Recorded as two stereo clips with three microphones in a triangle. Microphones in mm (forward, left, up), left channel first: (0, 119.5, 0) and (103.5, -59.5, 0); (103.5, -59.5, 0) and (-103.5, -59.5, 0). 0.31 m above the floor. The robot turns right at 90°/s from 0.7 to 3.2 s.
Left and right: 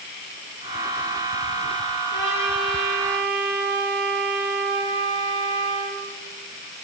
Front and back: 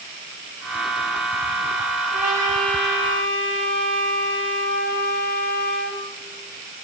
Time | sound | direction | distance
2.1 | a trumpet | 85° left | 8 m